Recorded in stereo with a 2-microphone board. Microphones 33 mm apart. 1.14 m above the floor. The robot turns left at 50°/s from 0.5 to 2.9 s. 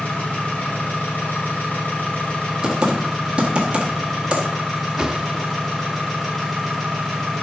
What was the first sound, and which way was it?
An engine running, 125° left.